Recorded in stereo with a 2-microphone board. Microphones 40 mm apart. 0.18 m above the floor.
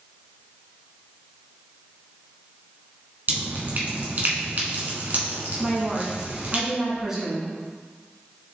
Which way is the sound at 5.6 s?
10° right (ahead or behind).